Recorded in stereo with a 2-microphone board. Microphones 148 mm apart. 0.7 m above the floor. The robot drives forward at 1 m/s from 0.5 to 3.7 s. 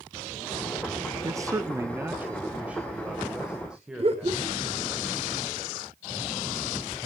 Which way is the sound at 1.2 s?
20° right (ahead or behind).